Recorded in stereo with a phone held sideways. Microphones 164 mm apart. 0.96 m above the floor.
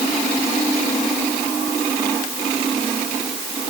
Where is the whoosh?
I don't hear a whoosh.